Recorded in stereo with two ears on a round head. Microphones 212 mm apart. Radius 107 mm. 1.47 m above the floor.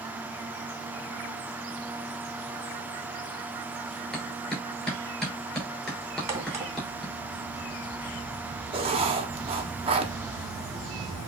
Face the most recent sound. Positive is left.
turn(degrees=-25)  # may be behind; listen again after turning